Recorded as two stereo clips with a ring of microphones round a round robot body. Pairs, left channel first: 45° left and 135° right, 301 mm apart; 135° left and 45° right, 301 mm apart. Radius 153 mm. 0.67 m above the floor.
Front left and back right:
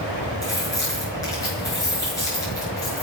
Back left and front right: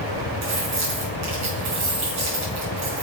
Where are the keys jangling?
35° right, 6 m.